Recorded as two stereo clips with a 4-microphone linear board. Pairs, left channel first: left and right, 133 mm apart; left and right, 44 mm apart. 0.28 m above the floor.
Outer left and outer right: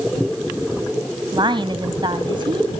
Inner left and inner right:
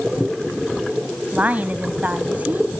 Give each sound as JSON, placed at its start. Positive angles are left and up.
{"t": 1.3, "sound": "a woman speaking", "side_deg": -35, "distance_m": 1.8}